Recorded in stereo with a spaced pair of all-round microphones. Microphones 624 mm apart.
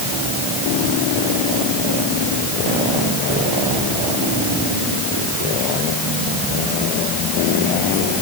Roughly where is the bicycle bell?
I don't hear a bicycle bell.